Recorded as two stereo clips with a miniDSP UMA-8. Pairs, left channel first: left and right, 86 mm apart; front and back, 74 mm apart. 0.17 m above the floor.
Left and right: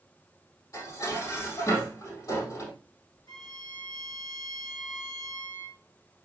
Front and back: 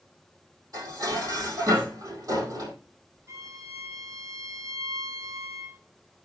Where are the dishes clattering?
140° left, 3.5 m.